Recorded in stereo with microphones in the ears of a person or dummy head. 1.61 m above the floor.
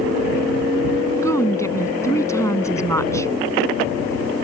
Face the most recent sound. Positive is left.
turn(degrees=15)  # may be behind; listen again after turning